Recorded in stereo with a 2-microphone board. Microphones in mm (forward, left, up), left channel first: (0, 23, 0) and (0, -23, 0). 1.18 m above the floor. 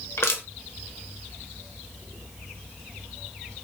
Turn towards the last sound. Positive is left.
turn(degrees=75)  # may be behind; listen again after turning